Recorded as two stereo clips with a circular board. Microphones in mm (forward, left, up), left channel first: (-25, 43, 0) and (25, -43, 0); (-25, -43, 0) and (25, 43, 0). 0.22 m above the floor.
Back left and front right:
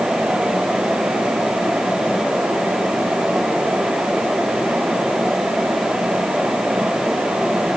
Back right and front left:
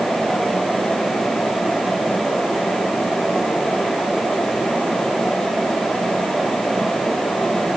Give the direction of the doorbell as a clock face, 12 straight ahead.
No doorbell in this recording.